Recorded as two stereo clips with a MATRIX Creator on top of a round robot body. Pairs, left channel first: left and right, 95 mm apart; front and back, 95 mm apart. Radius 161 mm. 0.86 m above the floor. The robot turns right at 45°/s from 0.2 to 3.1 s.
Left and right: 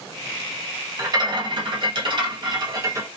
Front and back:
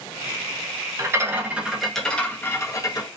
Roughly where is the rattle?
Behind right.